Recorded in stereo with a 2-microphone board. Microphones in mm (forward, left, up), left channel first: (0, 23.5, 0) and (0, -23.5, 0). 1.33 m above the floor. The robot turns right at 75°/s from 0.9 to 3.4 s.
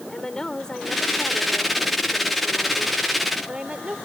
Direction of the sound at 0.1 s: 15° left.